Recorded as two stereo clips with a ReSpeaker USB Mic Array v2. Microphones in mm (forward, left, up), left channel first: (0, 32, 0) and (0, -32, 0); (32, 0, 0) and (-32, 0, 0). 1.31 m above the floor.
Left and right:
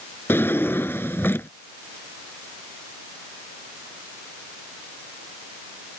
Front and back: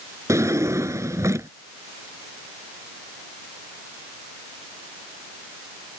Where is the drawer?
145° left.